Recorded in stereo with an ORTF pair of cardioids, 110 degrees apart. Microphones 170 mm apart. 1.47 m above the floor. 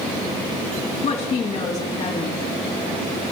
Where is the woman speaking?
45° left, 3 m.